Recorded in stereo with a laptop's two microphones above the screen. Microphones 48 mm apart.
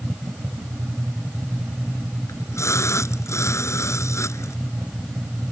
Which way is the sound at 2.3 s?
70° left (ahead or behind).